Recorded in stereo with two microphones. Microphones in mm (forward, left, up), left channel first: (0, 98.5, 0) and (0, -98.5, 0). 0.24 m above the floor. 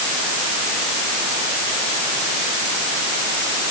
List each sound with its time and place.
Only background noise.